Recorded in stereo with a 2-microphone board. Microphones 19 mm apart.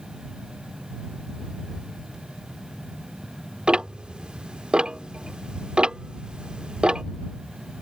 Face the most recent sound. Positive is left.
turn(degrees=-55)  # may be behind; listen again after turning